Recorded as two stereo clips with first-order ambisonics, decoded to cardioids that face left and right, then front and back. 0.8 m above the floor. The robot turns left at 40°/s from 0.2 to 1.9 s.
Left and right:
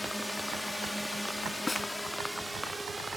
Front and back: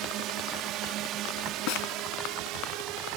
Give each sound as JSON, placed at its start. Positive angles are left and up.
{"t": 0.0, "sound": "a drone", "azimuth_deg": 175}
{"t": 1.7, "sound": "a snare drum", "azimuth_deg": 10}